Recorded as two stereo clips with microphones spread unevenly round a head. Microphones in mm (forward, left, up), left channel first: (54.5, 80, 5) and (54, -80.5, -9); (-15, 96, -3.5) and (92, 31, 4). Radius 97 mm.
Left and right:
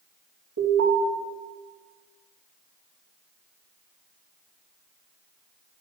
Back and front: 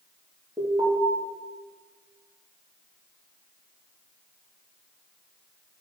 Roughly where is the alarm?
Behind right.